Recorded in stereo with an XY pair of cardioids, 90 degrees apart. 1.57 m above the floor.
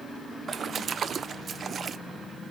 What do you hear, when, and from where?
0.5 s a splash: 55° right, 0.7 m